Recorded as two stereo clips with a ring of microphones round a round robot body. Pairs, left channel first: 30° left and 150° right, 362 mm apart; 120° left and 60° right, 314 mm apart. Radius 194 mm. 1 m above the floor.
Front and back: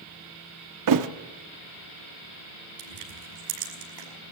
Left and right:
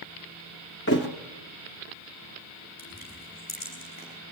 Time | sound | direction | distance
0.9 | a thud | straight behind | 0.7 m
2.8 | crushing | 170° right | 5.5 m